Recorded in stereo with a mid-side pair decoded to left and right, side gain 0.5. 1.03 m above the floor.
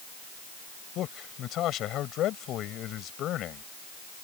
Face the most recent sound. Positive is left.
turn(degrees=65)